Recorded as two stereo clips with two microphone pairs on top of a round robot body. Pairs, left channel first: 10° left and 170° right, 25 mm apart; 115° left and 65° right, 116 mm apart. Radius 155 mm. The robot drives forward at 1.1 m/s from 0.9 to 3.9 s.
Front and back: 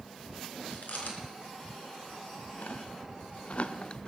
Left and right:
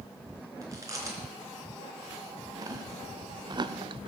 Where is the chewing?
5° right, 3.5 m; by 4.1 s 35° right, 0.6 m.